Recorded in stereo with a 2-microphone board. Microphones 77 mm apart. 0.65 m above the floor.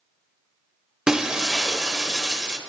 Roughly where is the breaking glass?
Centre.